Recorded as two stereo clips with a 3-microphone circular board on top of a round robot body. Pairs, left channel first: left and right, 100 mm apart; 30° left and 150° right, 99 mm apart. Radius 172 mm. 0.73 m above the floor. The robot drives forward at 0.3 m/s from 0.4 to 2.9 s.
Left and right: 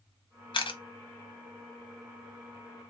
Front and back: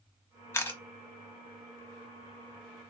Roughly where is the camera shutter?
Left.